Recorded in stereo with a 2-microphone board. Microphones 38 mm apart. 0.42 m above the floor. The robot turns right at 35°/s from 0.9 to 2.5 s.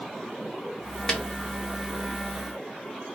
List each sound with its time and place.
1.1 s a snare drum: 15° left (ahead or behind), 1.4 m; by 1.2 s 20° left (ahead or behind), 1.4 m